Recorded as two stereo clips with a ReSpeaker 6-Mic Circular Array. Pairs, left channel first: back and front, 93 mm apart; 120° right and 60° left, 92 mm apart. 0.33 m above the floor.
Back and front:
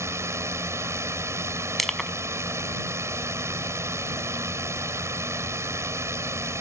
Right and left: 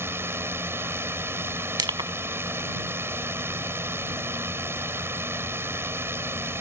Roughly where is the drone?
Ahead.